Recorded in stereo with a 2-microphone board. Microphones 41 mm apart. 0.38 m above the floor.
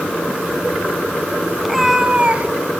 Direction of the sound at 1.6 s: 5° right (ahead or behind).